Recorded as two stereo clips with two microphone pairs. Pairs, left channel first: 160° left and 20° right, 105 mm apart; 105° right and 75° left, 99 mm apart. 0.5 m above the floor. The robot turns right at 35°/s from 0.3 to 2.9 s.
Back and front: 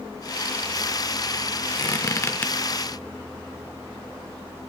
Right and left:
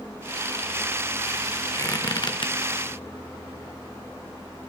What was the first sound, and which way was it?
A squeak, 160° right.